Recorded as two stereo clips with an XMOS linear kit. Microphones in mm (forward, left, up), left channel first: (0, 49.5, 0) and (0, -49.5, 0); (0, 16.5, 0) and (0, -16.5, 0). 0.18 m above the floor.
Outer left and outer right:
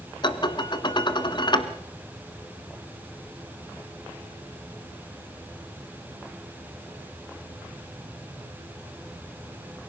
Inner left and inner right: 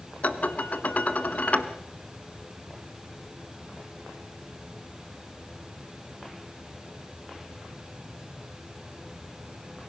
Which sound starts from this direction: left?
Dishes clattering, at 0.2 s.